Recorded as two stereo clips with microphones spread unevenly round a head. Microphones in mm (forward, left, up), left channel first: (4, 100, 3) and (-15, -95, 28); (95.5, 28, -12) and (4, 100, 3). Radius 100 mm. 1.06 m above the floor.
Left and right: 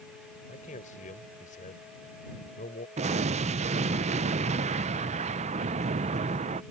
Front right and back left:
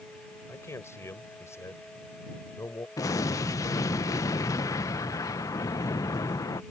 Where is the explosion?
55° right.